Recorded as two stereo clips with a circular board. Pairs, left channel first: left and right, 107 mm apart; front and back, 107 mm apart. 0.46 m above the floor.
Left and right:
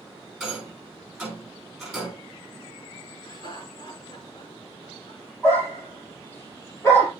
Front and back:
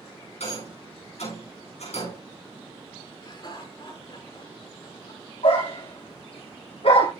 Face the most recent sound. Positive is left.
turn(degrees=20)